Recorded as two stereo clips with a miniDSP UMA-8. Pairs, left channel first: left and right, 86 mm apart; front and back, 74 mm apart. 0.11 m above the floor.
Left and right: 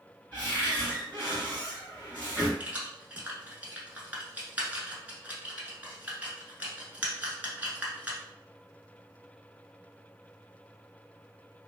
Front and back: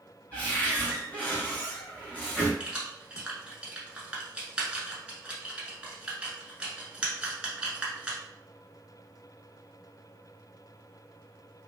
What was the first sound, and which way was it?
A cupboard door, 35° left.